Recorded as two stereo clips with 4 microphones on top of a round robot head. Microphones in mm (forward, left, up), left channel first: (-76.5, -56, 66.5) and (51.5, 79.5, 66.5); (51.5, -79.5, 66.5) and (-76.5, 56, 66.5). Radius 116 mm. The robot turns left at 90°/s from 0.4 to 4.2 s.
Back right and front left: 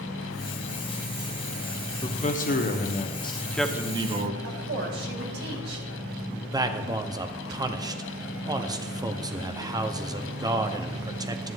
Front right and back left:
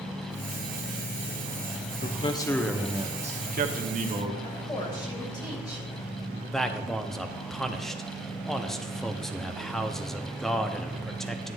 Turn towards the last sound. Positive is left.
turn(degrees=40)